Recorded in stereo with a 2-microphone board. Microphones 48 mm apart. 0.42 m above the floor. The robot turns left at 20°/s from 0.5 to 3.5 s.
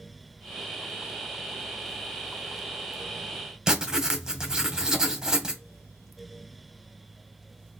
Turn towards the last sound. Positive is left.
turn(degrees=-10)  # may be behind; listen again after turning